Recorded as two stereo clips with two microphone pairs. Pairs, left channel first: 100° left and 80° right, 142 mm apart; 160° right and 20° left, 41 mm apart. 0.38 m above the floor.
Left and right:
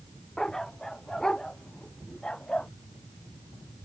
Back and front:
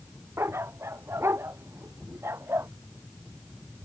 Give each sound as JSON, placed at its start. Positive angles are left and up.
{"t": 0.4, "sound": "a dog barking", "azimuth_deg": 15}